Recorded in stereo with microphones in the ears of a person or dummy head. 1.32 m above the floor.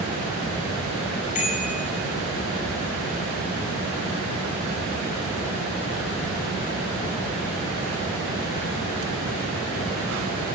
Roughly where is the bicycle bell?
Left.